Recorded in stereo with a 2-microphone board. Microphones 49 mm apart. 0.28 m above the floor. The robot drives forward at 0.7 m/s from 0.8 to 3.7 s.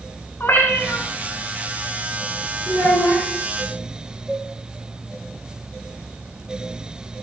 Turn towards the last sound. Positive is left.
turn(degrees=-10)  # may be behind; listen again after turning